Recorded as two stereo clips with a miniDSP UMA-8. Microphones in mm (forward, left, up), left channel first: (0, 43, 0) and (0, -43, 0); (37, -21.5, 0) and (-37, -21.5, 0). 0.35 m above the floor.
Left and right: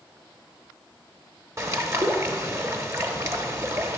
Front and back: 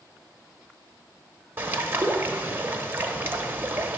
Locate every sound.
1.6 s a bird: 130° right, 0.7 m